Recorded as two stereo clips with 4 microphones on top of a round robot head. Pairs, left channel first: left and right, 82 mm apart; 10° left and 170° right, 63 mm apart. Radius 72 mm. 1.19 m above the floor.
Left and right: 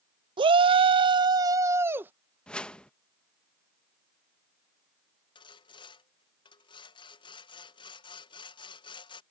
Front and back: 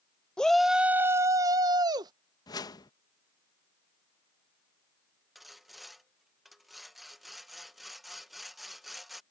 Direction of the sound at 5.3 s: 100° left.